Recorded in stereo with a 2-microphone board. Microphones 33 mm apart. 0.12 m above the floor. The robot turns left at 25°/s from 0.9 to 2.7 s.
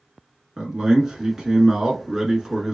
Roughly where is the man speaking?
Centre.